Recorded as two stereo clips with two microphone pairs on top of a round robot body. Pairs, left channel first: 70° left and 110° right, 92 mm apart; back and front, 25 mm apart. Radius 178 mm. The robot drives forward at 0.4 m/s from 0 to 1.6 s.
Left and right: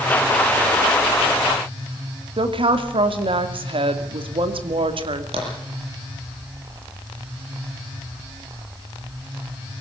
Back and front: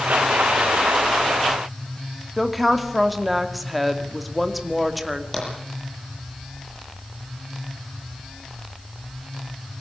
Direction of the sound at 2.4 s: 90° right.